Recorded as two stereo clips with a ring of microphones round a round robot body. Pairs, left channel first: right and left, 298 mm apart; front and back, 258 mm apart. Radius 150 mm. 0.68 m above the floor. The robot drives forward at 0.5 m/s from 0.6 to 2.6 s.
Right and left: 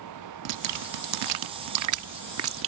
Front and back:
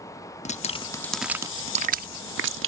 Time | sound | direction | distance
0.5 | dripping | 65° left | ?